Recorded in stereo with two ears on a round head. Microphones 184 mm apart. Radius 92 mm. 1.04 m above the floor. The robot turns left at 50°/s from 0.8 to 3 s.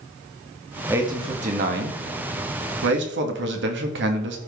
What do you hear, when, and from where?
0.9 s a man speaking: 10° right, 1.6 m; by 4.4 s 115° right, 1.6 m